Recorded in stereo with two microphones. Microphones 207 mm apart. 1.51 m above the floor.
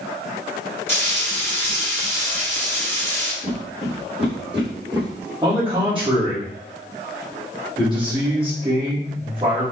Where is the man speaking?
25° right (ahead or behind), 2 m.